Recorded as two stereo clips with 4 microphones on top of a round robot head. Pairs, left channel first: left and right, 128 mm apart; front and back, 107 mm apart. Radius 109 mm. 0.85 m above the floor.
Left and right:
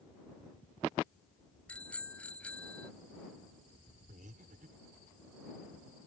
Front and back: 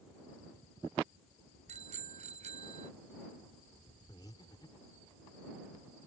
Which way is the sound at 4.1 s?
60° right.